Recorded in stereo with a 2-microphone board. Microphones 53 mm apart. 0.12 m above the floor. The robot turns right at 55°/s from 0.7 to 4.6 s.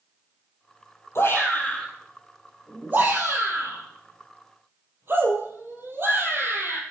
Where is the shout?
55° left (ahead or behind), 4 m; by 6.8 s 45° right (ahead or behind), 4 m.